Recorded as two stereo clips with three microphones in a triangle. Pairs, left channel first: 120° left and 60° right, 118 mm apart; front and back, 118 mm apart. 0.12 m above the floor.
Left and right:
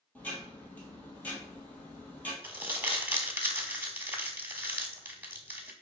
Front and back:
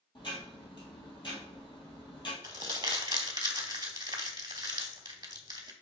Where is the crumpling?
130° right, 0.7 m.